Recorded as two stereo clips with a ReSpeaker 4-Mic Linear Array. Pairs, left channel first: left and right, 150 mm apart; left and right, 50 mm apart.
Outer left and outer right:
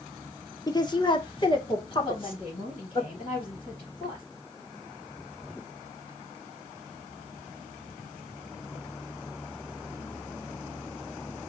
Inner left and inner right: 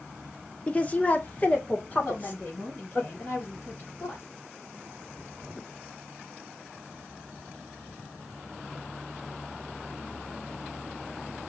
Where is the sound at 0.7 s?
25° left (ahead or behind), 0.9 m; by 3.0 s 35° left (ahead or behind), 2.5 m.